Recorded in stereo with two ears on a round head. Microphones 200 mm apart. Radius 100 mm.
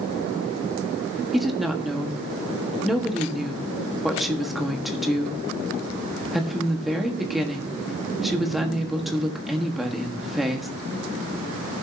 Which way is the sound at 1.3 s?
Centre (ahead or behind).